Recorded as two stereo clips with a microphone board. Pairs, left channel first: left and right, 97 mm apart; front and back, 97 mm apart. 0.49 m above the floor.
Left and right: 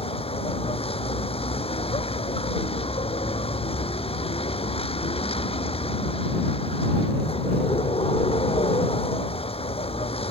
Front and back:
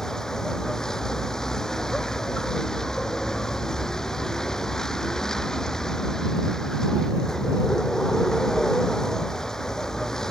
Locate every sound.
0.0 s a vehicle: 85° left